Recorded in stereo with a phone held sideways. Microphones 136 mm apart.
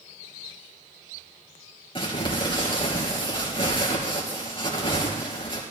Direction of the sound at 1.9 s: 40° left (ahead or behind).